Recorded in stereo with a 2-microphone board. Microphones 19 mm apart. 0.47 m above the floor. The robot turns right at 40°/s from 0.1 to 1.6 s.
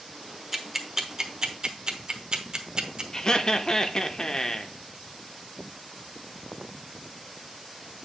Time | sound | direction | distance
0.5 | ticking | 10° right (ahead or behind) | 1.0 m
3.1 | laughter | 30° left (ahead or behind) | 0.7 m